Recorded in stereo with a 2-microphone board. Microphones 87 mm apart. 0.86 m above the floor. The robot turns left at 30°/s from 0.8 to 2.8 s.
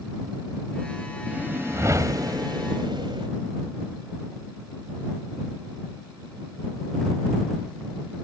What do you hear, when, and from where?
1.3 s a whoosh: 20° right; by 3.3 s 65° right